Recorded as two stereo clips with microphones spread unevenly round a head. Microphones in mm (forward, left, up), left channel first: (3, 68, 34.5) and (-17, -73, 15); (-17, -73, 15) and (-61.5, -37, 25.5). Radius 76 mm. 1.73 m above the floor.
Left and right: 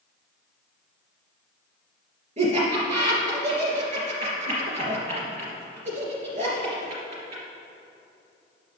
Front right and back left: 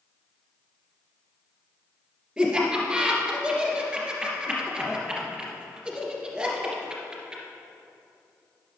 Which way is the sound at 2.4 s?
140° right.